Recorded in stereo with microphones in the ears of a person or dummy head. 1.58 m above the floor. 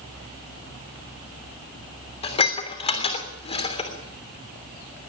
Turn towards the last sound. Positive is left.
turn(degrees=30)  # may be behind; listen again after turning